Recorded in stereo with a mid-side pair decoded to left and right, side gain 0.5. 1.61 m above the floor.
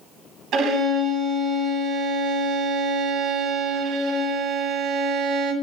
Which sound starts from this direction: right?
A violin, at 0.5 s.